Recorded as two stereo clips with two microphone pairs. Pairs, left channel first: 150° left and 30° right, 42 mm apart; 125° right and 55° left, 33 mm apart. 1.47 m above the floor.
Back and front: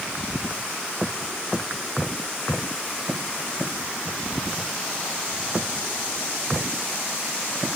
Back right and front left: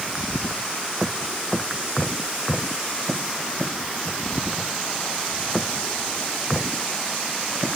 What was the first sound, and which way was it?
Only background noise.